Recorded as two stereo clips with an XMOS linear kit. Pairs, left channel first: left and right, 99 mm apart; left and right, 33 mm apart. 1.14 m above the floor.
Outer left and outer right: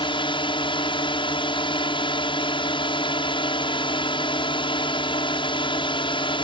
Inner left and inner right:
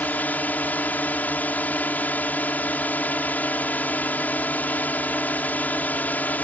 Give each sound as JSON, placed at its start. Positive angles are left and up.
{"t": 0.0, "sound": "a drone", "side_deg": 55}